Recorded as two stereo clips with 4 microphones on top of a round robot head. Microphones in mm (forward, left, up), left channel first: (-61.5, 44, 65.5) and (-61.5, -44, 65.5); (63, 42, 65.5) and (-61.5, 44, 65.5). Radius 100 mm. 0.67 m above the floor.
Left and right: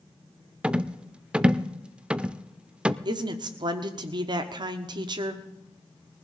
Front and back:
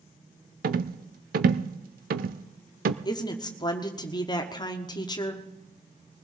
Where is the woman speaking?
55° right, 1.2 m.